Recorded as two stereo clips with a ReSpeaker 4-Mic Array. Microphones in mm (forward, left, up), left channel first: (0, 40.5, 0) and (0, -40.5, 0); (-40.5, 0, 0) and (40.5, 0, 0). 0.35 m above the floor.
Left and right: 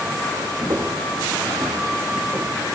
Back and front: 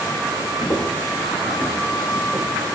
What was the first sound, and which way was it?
Footsteps, 140° right.